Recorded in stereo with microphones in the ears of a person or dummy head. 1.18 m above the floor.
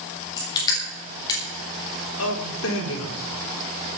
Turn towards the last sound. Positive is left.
turn(degrees=75)  # may be behind; listen again after turning